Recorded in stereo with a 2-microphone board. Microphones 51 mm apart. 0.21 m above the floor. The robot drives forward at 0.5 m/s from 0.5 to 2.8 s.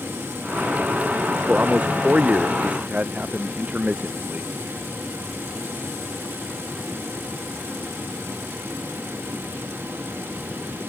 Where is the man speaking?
25° right (ahead or behind).